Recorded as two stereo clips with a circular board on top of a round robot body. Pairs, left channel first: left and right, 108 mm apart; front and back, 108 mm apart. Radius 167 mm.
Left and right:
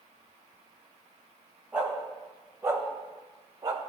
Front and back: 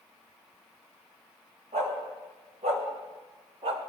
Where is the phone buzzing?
No phone buzzing in this recording.